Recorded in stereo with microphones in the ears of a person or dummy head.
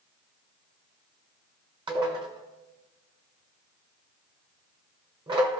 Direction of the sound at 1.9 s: 25° right (ahead or behind).